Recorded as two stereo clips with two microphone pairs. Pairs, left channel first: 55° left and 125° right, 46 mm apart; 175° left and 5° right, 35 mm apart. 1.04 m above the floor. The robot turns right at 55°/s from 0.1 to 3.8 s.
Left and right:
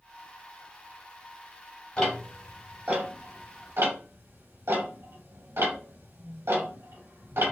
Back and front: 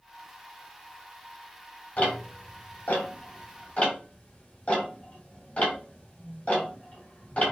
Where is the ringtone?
I don't hear a ringtone.